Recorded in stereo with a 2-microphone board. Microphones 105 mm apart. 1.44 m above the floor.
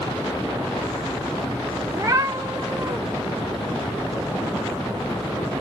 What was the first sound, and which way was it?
A cat meowing, 25° right (ahead or behind).